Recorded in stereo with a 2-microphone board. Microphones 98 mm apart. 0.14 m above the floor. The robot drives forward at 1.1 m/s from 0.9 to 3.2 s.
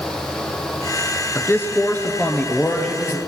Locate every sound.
1.4 s a man speaking: 25° left (ahead or behind), 1.4 m; by 3.2 s 10° left (ahead or behind), 3 m